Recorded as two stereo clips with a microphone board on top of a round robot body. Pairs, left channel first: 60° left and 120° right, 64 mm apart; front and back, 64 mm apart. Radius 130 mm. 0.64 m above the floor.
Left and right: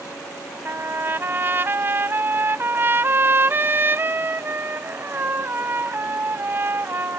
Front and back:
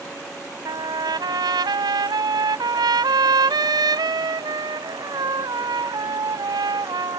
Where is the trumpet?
175° right.